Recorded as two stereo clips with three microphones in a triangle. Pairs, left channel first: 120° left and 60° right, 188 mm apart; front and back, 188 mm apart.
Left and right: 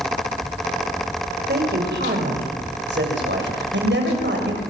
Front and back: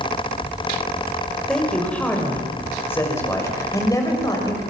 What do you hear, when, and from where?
1.5 s a man speaking: 85° right, 6 m; by 4.6 s 70° right, 7 m